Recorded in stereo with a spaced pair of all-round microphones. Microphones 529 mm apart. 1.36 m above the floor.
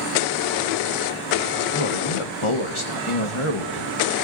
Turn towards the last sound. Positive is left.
turn(degrees=65)  # may be behind; listen again after turning